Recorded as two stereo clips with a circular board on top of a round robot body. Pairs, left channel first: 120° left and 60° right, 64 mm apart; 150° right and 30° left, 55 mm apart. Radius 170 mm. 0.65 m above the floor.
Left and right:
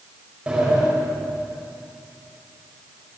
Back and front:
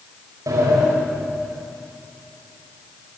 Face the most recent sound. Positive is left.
turn(degrees=15)